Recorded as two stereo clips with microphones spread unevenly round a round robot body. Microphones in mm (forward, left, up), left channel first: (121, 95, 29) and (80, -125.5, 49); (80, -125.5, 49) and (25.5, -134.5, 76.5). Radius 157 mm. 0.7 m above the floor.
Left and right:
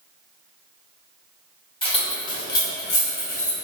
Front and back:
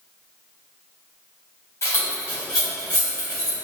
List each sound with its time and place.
1.8 s keys jangling: 15° left, 1.2 m; by 3.5 s 135° left, 1.3 m